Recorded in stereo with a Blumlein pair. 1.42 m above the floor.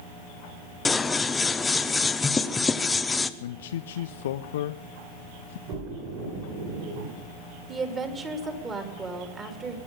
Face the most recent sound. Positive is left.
turn(degrees=-20)